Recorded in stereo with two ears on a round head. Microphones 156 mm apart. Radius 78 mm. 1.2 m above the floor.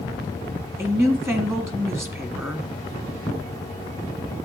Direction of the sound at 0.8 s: 15° right (ahead or behind).